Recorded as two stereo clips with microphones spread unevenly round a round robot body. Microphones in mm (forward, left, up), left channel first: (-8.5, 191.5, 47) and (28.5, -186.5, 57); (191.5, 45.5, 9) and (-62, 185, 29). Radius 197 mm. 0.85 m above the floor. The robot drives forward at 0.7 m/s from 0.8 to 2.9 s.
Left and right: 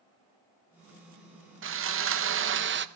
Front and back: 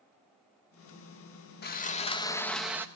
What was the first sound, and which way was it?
Sawing, 45° right.